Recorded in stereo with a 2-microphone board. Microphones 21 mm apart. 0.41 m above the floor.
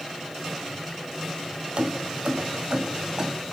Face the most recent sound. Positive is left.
turn(degrees=-30)  # may be behind; listen again after turning